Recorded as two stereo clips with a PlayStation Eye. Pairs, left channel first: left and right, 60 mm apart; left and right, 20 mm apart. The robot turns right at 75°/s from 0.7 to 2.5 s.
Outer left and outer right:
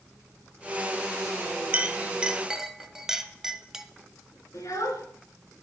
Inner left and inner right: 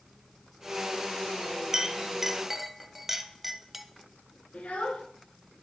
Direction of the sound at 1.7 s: 25° right (ahead or behind).